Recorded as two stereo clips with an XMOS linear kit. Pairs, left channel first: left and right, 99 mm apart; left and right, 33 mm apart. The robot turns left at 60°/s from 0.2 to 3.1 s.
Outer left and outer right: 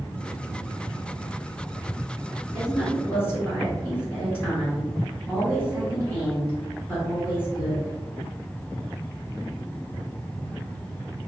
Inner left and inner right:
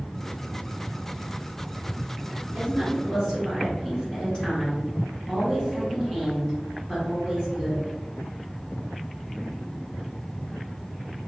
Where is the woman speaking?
165° left, 1.6 m; by 7.9 s 135° left, 1.6 m.